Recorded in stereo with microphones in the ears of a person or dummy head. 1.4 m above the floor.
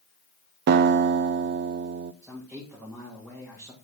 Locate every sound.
0.7 s a guitar: 60° right (ahead or behind), 0.5 m
2.2 s a man speaking: 5° right (ahead or behind), 2 m